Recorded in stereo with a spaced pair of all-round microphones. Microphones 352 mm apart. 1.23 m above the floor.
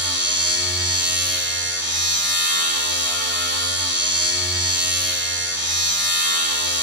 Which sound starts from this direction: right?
A machine running, at 0.0 s.